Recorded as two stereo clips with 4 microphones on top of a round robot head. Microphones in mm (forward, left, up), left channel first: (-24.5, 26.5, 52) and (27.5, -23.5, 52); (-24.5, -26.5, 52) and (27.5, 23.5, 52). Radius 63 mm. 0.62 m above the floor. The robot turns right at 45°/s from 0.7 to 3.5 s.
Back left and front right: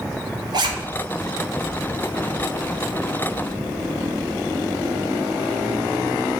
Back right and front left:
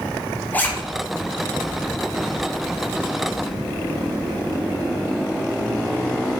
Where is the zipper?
70° right, 1.7 m.